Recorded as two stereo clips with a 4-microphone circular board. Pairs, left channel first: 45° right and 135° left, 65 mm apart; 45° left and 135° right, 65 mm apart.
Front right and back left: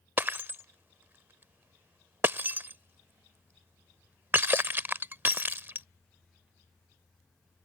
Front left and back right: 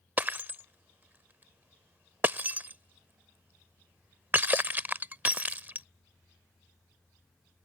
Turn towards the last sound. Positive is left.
turn(degrees=180)